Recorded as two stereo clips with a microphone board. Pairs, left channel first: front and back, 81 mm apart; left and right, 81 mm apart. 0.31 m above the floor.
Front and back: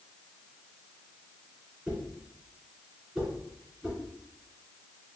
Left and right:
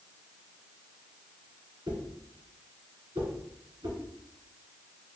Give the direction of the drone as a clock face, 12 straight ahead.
No drone in this recording.